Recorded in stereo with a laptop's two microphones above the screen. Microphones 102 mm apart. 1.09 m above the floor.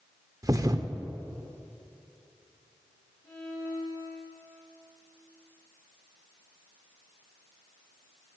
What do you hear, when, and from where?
0.4 s a thud: 35° right (ahead or behind), 0.8 m
3.2 s a violin: 30° left (ahead or behind), 5 m